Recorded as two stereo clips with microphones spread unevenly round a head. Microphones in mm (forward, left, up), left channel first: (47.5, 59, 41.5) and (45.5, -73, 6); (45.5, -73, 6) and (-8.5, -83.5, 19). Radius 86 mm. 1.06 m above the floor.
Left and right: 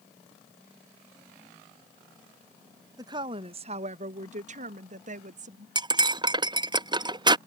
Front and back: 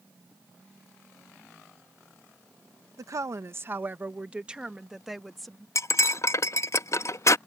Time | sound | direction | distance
3.0 | a woman speaking | 145° right | ?
5.8 | cutlery clinking | 30° right | ?